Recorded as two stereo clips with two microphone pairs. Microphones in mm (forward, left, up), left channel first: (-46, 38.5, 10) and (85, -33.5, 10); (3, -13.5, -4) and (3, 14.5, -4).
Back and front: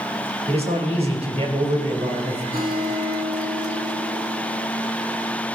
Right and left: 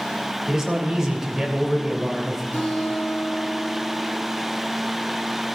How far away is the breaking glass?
I don't hear breaking glass.